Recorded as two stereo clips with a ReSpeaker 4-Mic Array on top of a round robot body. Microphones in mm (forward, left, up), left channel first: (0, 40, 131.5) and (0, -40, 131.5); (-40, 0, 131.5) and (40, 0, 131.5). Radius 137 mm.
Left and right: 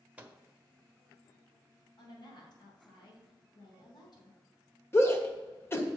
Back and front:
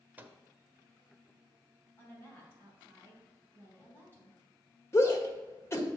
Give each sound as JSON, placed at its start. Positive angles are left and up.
{"t": 0.2, "sound": "a microwave", "azimuth_deg": -40, "distance_m": 1.0}
{"t": 2.0, "sound": "a woman speaking", "azimuth_deg": 120, "distance_m": 3.0}
{"t": 4.9, "sound": "a shout", "azimuth_deg": 135, "distance_m": 1.6}